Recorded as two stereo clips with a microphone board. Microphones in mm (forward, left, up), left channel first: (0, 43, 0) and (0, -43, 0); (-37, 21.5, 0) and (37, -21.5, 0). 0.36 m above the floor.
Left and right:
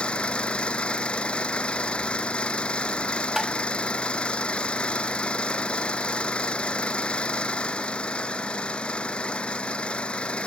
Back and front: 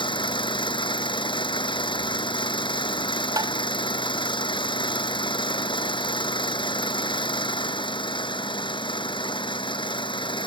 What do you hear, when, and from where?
0.0 s an engine running: 170° left
3.4 s tapping: 5° right